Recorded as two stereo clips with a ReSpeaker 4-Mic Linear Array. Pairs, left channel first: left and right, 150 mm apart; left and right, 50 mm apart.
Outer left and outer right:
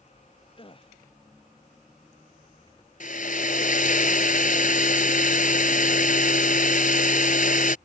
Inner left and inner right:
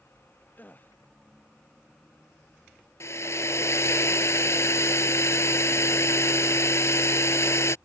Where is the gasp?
35° left (ahead or behind).